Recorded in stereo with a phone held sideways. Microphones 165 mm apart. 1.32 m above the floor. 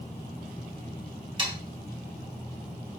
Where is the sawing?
30° right (ahead or behind), 3.5 m.